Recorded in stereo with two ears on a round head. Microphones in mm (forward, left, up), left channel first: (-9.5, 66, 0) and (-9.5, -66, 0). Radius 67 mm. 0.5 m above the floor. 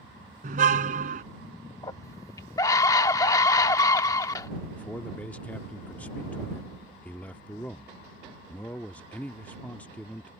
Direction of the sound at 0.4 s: 60° right (ahead or behind).